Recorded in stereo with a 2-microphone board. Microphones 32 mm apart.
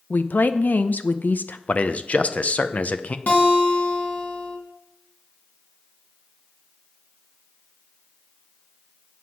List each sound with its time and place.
0.1 s a woman speaking: 65° left (ahead or behind), 0.8 m
1.7 s a man speaking: 45° left (ahead or behind), 0.7 m
3.3 s a guitar: 55° left (ahead or behind), 3 m